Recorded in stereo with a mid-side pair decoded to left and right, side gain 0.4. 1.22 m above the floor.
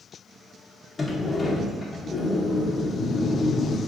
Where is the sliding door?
35° left, 0.9 m.